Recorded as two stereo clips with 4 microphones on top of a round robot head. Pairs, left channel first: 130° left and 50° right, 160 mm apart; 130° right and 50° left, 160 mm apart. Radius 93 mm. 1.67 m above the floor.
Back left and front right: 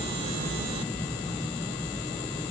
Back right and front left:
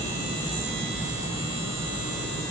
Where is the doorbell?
No doorbell in this recording.